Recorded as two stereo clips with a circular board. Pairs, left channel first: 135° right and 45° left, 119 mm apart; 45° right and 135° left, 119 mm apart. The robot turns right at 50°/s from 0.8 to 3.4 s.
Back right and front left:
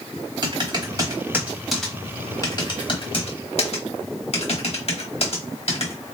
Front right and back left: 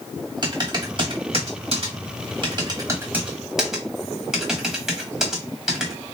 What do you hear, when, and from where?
0.4 s typing on a keyboard: 90° left, 1.3 m; by 5.9 s 140° right, 1.3 m